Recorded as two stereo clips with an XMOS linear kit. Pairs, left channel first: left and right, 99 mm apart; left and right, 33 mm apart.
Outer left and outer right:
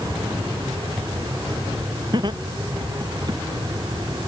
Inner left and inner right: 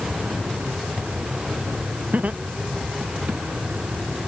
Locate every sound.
2.1 s laughter: 50° right (ahead or behind); by 3.4 s 45° right (ahead or behind)